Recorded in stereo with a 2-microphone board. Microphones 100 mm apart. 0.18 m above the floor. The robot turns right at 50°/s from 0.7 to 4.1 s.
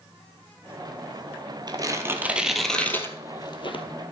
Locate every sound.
1.7 s tearing paper: 45° right (ahead or behind), 1.3 m; by 3.8 s 60° left (ahead or behind), 1.3 m